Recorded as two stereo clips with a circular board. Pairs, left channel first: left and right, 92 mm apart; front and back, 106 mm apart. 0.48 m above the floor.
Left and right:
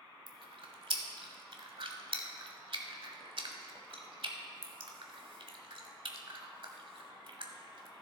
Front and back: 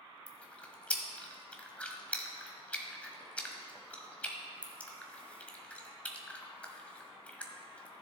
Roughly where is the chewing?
Right.